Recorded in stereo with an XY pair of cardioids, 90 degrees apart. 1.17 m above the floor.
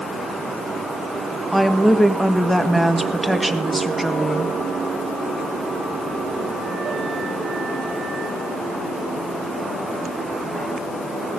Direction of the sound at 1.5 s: 10° right.